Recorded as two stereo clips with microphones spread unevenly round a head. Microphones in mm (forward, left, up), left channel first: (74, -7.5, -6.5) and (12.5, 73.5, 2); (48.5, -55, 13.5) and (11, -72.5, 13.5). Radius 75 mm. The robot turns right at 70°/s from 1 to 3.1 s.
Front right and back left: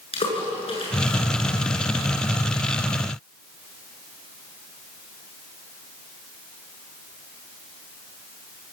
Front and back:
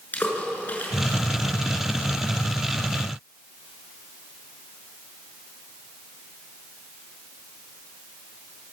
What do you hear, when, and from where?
0.1 s a splash: 20° right, 7 m